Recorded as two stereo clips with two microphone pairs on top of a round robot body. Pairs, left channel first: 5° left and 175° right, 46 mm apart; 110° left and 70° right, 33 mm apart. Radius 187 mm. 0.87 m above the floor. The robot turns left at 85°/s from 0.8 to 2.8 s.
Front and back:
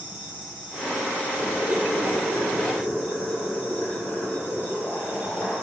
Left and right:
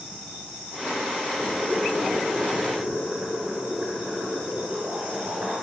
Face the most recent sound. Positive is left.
turn(degrees=-50)